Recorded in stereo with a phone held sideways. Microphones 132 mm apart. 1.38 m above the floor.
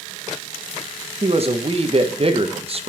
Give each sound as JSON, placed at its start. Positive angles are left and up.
{"t": 1.2, "sound": "a man speaking", "side_deg": -45, "distance_m": 1.4}